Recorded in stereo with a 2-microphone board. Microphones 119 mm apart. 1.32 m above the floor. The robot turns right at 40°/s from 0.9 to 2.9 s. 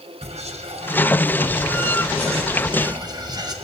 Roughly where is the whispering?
Behind right.